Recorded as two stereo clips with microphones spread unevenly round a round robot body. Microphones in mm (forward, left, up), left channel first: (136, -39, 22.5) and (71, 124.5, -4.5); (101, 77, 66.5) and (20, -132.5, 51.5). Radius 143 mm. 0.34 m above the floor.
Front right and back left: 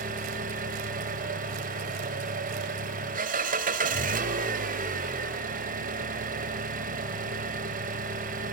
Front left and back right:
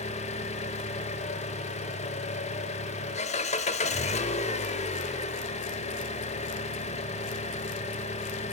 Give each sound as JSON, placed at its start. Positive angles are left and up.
{"t": 0.0, "sound": "an engine running", "azimuth_deg": 130, "distance_m": 0.9}